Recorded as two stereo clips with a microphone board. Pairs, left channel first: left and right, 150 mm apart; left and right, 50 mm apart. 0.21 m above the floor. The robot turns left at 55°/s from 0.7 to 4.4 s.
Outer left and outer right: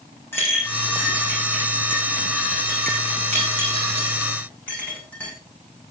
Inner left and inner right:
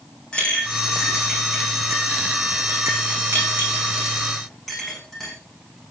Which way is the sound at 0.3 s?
15° left (ahead or behind).